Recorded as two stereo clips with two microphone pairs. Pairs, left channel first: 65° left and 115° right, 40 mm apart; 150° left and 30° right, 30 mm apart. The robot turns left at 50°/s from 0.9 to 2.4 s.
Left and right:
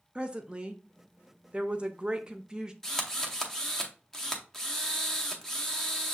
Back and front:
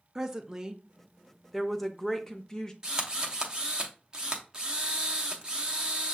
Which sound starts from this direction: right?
A woman speaking, at 0.1 s.